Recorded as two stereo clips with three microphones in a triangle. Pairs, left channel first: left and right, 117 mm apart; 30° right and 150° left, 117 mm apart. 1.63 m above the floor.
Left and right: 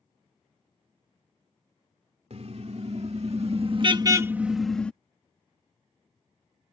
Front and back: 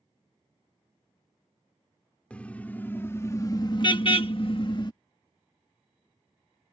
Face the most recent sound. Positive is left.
turn(degrees=10)